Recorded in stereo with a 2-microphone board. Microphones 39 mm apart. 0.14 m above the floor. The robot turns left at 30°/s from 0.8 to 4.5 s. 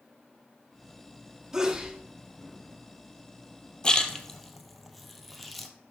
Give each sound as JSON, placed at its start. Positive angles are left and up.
{"t": 1.5, "sound": "a sneeze", "side_deg": -15, "distance_m": 1.4}
{"t": 3.8, "sound": "a splash", "side_deg": 20, "distance_m": 0.9}